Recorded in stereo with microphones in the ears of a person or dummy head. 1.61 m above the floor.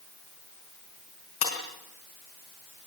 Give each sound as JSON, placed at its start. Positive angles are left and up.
{"t": 1.4, "sound": "breaking glass", "side_deg": 40, "distance_m": 4.5}